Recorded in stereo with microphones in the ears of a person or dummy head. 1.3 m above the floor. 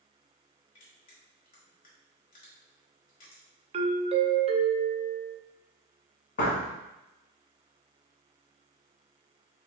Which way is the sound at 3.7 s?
30° right (ahead or behind).